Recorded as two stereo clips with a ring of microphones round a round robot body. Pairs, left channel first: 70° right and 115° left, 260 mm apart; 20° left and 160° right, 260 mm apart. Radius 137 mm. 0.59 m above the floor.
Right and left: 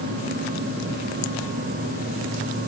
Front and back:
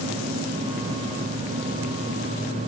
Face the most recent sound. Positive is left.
No sound to turn to.